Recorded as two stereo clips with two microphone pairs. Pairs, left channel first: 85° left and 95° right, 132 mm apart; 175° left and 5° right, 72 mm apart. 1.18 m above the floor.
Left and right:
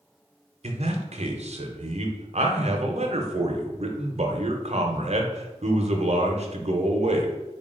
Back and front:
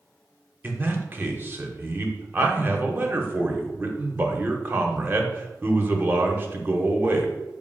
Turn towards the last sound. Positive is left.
turn(degrees=-65)